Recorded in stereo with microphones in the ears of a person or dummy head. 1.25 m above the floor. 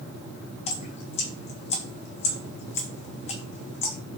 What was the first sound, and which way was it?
Dripping, 25° left (ahead or behind).